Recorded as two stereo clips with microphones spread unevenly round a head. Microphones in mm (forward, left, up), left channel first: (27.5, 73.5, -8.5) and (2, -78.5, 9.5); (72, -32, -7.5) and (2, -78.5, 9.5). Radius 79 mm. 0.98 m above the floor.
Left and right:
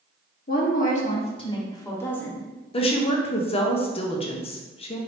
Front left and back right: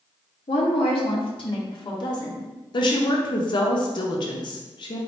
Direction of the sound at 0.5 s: 50° left.